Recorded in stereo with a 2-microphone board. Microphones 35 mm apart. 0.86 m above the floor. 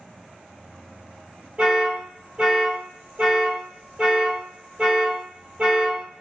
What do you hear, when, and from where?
1.6 s an alarm: 25° right (ahead or behind), 1.4 m